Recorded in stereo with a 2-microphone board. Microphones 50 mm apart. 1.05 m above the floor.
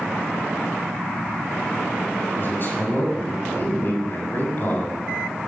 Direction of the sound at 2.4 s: 40° left (ahead or behind).